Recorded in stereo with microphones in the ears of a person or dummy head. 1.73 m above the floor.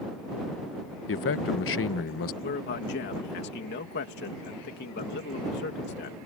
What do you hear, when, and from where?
1.1 s a man speaking: 65° left (ahead or behind)
2.4 s a man speaking: 50° left (ahead or behind)